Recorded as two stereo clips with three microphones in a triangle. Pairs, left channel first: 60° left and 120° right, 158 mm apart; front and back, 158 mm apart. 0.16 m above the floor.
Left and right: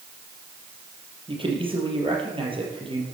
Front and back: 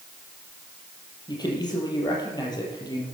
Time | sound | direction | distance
1.3 | a man speaking | 65° right | 4.5 m